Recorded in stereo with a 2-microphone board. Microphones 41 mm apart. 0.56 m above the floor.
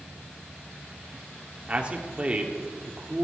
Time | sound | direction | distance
1.7 | a man speaking | 25° right (ahead or behind) | 1.7 m